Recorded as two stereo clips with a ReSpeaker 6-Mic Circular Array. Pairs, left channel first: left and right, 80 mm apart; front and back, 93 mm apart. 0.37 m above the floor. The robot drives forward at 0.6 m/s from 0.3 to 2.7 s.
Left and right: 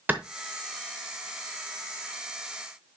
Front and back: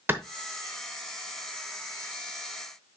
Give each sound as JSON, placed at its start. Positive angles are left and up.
{"t": 0.1, "sound": "a clap", "azimuth_deg": -135, "distance_m": 0.8}